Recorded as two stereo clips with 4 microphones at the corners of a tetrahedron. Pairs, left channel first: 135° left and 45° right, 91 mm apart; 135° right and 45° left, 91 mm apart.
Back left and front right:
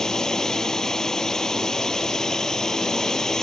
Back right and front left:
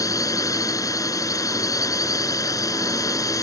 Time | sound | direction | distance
0.0 | a drone | 145° right | ?